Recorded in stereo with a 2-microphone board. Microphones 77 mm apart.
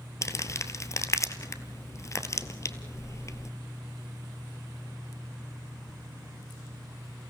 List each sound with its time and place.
0.2 s crumpling: 45° left (ahead or behind), 1.0 m